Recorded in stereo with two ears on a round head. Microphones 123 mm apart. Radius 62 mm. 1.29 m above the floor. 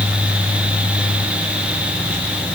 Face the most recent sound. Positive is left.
No sound to turn to.